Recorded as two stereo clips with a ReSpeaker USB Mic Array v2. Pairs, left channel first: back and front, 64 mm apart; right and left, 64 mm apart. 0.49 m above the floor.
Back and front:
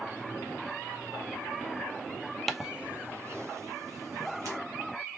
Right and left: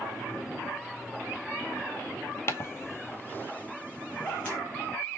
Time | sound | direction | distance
2.5 | footsteps | 95° right | 0.6 m